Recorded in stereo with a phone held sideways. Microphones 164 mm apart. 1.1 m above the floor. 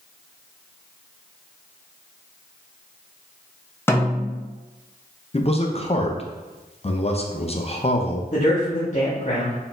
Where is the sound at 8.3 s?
50° left (ahead or behind), 0.9 m.